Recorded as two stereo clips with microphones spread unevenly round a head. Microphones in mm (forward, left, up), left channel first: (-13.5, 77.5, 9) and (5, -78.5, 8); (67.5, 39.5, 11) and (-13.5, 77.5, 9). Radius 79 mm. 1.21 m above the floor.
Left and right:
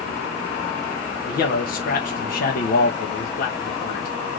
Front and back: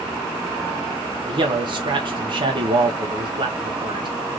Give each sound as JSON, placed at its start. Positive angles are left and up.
{"t": 1.3, "sound": "a man speaking", "azimuth_deg": 130, "distance_m": 1.2}